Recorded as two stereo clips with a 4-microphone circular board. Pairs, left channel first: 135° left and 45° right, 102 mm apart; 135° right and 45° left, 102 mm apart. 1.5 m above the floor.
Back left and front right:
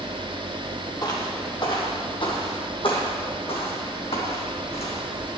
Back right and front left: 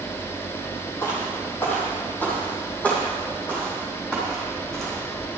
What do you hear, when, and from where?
1.0 s footsteps: 170° left, 2.5 m; by 5.4 s 135° left, 4 m